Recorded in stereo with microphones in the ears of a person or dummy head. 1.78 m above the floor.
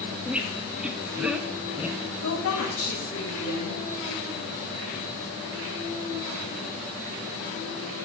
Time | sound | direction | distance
0.2 | a squeak | 5° right (ahead or behind) | 0.9 m
2.2 | a woman speaking | 75° left (ahead or behind) | 3 m